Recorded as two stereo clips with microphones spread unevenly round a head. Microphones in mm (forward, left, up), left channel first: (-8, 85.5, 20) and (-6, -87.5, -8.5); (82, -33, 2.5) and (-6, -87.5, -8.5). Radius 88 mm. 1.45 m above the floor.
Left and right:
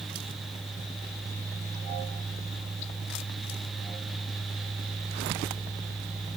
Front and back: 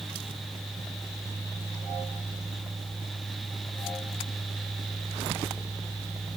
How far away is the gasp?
I don't hear a gasp.